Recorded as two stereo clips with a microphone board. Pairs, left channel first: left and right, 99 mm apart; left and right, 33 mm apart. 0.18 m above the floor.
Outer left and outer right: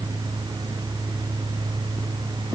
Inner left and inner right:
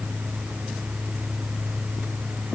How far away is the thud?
No thud in this recording.